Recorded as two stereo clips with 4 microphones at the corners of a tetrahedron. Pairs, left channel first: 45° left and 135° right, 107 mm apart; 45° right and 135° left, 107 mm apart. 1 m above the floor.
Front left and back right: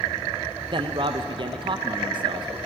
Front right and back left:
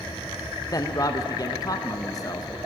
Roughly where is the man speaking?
Right.